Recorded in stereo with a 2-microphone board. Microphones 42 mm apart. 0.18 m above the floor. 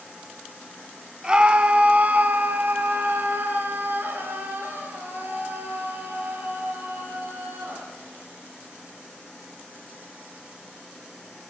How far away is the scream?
About 1.8 m.